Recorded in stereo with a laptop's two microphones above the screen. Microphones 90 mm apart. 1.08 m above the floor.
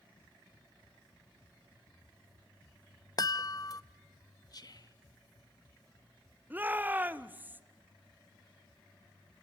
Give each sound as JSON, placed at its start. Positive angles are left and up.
{"t": 3.2, "sound": "a chime", "side_deg": 40, "distance_m": 0.6}
{"t": 4.5, "sound": "whispering", "side_deg": 45, "distance_m": 1.2}
{"t": 6.5, "sound": "a shout", "side_deg": -20, "distance_m": 0.7}